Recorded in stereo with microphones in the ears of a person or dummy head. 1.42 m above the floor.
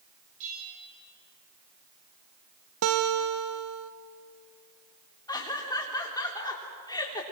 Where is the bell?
35° right (ahead or behind), 6 m.